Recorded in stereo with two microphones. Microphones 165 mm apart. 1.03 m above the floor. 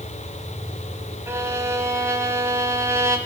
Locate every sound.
1.3 s a violin: 15° right (ahead or behind), 1.4 m